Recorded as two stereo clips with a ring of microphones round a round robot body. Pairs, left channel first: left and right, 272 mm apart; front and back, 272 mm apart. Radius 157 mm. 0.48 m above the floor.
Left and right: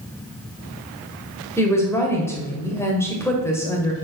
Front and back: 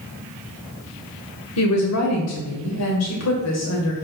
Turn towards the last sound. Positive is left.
turn(degrees=10)